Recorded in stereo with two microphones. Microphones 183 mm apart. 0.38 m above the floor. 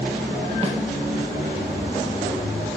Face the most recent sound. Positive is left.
turn(degrees=-35)  # may be behind; listen again after turning